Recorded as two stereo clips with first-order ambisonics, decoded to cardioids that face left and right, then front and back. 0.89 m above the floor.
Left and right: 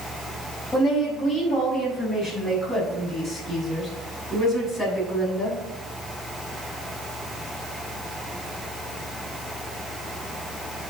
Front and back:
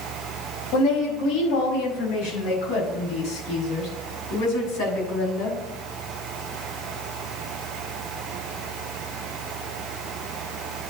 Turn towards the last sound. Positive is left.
turn(degrees=20)